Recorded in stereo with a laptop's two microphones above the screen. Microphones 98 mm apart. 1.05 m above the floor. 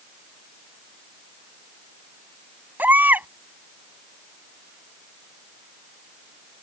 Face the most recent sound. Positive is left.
turn(degrees=-20)  # may be behind; listen again after turning